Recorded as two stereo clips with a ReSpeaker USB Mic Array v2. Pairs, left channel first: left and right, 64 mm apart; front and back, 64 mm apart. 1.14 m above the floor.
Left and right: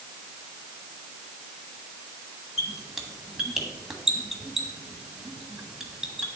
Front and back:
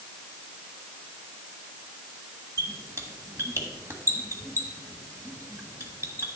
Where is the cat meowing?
I don't hear a cat meowing.